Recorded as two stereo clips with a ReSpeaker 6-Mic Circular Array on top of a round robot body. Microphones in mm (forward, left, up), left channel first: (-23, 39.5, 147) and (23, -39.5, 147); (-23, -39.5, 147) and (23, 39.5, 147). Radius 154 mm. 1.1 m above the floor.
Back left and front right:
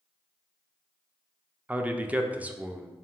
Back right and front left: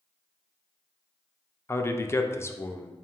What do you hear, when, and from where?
1.7 s a man speaking: 115° right, 0.6 m